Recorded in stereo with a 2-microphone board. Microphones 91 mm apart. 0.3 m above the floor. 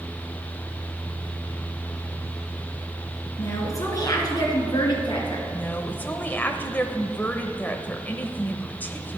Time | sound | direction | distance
3.4 | a woman speaking | 30° left (ahead or behind) | 3.5 m
5.5 | a woman speaking | 20° left (ahead or behind) | 0.9 m